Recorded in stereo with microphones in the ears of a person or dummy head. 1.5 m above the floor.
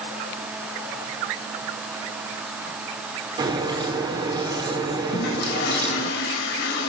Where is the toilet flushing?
65° left (ahead or behind), 5.5 m.